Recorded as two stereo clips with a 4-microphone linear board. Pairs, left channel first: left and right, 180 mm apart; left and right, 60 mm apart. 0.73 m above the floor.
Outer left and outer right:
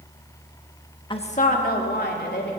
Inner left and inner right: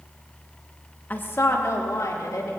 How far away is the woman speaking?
About 1.2 m.